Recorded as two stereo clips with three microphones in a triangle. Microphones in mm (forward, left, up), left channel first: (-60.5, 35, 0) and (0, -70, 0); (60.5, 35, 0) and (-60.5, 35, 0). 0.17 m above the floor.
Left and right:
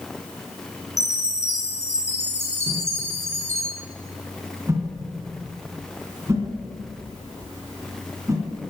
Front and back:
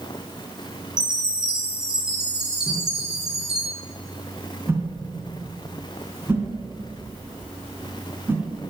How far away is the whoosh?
About 2 m.